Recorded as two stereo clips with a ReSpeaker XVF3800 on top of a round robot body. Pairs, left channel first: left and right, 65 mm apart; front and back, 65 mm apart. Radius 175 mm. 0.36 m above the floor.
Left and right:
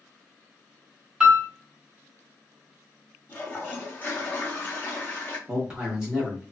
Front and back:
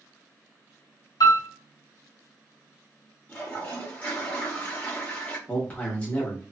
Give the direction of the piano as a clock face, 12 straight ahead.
12 o'clock.